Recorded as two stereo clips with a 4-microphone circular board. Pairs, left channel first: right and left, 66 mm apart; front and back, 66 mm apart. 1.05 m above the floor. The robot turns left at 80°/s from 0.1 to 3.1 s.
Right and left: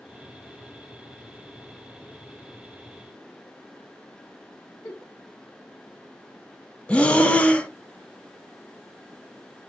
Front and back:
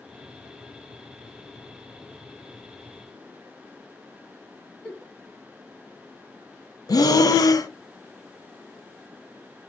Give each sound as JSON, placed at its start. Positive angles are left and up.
{"t": 4.8, "sound": "a giggle", "azimuth_deg": -75, "distance_m": 3.0}
{"t": 6.9, "sound": "breathing", "azimuth_deg": -20, "distance_m": 0.6}